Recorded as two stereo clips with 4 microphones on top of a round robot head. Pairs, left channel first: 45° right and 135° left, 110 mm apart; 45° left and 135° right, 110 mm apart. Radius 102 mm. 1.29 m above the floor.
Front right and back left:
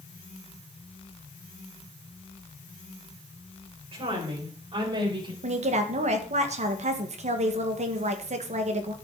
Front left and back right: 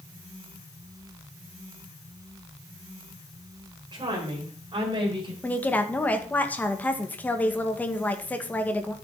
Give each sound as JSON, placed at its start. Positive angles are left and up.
{"t": 3.9, "sound": "a woman speaking", "azimuth_deg": 175, "distance_m": 5.0}
{"t": 5.4, "sound": "a woman speaking", "azimuth_deg": 120, "distance_m": 1.9}